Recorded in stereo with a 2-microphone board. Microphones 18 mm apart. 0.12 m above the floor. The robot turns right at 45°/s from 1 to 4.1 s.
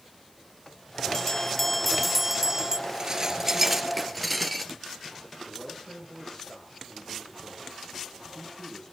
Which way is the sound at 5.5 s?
25° left (ahead or behind).